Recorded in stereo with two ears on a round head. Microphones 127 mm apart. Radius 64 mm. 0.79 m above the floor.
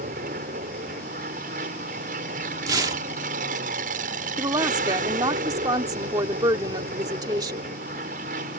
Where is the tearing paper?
25° right (ahead or behind).